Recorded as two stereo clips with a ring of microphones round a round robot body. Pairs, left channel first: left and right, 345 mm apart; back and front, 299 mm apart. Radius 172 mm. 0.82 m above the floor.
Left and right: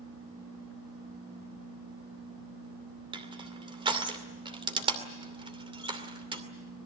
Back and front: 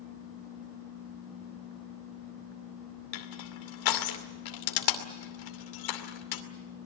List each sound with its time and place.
3.1 s crushing: 165° right, 2.5 m